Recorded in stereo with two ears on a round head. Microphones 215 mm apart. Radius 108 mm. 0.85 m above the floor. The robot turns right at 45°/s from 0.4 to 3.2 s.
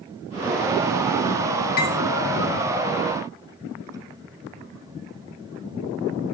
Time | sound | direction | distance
1.8 | cutlery clinking | 40° left (ahead or behind) | 1.3 m